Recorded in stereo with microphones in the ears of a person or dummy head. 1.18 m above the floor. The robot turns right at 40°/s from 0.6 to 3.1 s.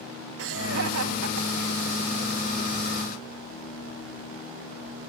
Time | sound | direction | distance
0.4 | laughter | 55° right (ahead or behind) | ?